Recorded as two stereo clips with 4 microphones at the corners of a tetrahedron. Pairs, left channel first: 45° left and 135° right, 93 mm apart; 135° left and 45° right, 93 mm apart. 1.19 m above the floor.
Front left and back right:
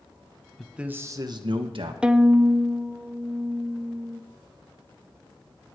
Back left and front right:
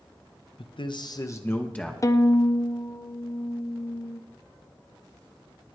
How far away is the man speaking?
About 1.1 m.